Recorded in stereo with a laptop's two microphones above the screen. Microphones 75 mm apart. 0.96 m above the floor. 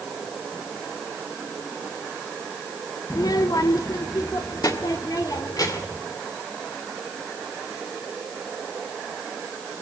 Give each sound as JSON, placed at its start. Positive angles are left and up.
{"t": 3.1, "sound": "a child speaking", "side_deg": 50, "distance_m": 0.6}